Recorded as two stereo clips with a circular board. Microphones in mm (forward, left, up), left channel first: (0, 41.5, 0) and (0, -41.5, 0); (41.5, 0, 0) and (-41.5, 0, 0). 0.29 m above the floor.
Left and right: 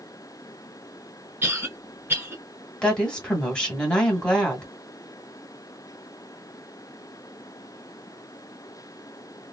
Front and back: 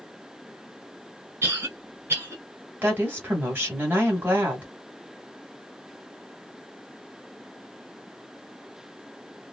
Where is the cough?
145° right, 1.4 m.